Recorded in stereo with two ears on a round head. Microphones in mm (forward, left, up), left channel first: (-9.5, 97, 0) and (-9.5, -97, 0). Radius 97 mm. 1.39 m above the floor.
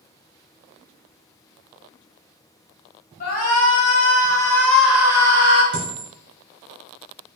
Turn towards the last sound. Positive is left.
turn(degrees=5)  # may be behind; listen again after turning